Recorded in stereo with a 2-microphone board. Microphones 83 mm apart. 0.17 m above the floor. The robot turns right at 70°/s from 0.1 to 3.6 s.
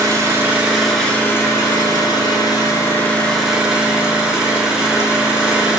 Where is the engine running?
55° right, 1.2 m; by 5.8 s 170° right, 1.2 m.